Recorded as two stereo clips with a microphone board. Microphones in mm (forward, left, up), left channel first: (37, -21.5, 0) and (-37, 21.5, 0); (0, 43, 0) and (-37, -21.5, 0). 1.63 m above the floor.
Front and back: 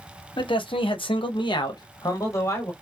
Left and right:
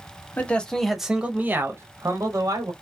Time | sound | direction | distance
0.4 | a man speaking | 10° right | 0.8 m